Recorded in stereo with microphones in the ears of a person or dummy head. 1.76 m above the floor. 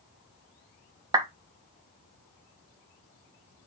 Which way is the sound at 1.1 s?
20° right (ahead or behind).